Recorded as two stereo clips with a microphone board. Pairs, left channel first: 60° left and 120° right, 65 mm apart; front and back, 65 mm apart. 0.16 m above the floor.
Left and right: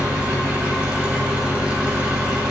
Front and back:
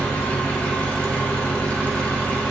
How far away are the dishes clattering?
No dishes clattering in this recording.